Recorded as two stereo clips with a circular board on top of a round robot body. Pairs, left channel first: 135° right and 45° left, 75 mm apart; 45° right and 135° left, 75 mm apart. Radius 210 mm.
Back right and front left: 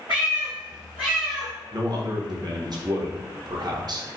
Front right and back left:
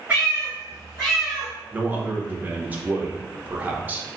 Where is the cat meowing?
70° left, 0.9 m; by 1.5 s straight ahead, 0.6 m.